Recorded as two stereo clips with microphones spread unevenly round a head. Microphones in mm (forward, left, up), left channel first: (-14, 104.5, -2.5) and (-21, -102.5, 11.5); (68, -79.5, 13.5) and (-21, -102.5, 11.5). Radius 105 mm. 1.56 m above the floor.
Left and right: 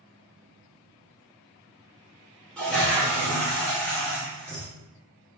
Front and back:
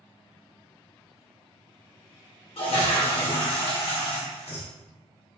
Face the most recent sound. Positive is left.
turn(degrees=0)